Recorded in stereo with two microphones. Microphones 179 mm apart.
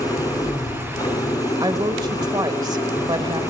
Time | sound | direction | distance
0.0 | an engine running | 20° left (ahead or behind) | 2 m
1.6 | a woman speaking | 20° right (ahead or behind) | 1.2 m